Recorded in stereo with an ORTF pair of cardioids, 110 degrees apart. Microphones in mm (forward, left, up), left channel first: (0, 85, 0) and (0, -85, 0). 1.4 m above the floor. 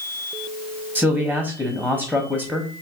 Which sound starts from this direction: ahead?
A man speaking, at 0.9 s.